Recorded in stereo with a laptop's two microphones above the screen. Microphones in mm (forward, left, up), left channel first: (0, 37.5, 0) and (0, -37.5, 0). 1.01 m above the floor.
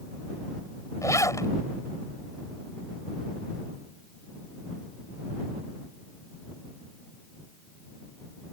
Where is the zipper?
45° left (ahead or behind).